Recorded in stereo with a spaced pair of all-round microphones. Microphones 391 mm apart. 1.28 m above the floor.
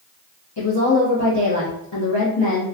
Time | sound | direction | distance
0.6 | a woman speaking | 85° left | 0.8 m